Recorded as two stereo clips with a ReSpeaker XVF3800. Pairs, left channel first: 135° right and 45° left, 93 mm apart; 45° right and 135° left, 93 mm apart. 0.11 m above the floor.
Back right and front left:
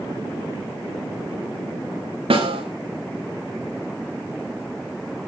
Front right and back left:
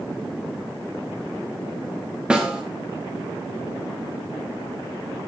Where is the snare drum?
55° left, 5 m.